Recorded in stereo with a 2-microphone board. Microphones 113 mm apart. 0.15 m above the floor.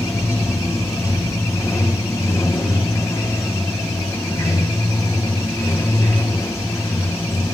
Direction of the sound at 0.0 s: 25° left (ahead or behind).